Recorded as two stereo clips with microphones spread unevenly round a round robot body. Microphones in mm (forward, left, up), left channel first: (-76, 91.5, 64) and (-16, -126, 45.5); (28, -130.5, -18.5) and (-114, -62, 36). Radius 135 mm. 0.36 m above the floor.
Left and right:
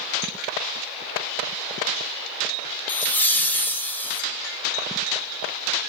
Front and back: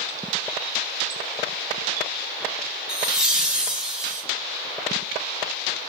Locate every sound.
2.9 s laughter: 25° left, 0.9 m